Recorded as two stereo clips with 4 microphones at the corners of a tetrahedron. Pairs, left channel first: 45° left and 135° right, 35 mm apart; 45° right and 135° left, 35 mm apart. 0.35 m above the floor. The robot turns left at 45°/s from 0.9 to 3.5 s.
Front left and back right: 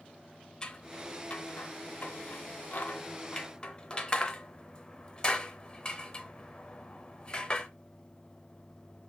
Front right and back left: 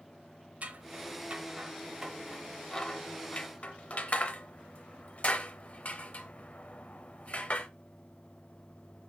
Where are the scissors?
105° left, 0.6 m; by 7.7 s 10° right, 0.6 m.